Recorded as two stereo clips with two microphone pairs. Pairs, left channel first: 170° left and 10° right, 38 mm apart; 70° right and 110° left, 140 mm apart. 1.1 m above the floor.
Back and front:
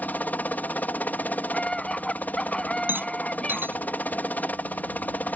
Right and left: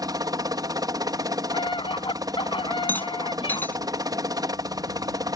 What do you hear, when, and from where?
0.0 s a helicopter: 165° left
1.5 s a scream: 125° right
2.9 s a rattle: 5° left